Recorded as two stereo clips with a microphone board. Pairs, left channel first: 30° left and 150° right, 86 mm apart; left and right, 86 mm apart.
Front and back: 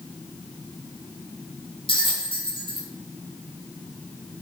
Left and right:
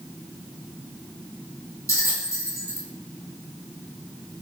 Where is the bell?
35° left, 1.1 m.